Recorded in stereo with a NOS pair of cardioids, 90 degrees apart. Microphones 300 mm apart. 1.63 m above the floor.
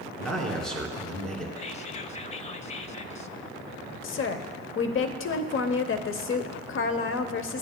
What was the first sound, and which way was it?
A man speaking, 5° left.